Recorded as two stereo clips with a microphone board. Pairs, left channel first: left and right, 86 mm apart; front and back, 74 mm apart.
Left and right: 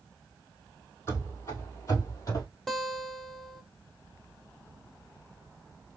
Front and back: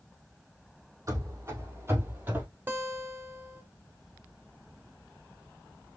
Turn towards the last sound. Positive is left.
turn(degrees=175)